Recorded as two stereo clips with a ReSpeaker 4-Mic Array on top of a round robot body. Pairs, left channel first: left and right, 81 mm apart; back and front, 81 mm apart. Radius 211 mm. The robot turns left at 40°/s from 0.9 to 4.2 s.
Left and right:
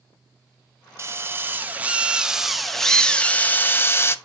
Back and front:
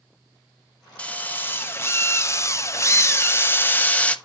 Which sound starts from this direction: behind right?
A drill, at 1.0 s.